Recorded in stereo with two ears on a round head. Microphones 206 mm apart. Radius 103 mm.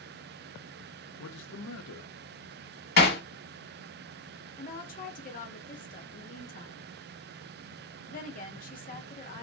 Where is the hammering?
45° left (ahead or behind), 1.3 m.